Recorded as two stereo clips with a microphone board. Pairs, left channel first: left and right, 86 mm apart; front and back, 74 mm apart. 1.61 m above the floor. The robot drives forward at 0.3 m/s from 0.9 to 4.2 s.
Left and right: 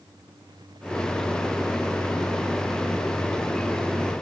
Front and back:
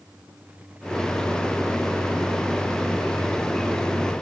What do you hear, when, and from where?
Only background noise.